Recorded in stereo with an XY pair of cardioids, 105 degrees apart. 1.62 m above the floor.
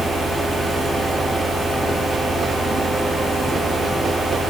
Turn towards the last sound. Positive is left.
turn(degrees=-25)